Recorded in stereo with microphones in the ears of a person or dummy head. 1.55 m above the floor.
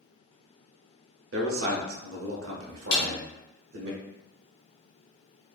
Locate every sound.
1.3 s a man speaking: 70° right (ahead or behind), 0.6 m
2.9 s a snare drum: 60° left (ahead or behind), 1.3 m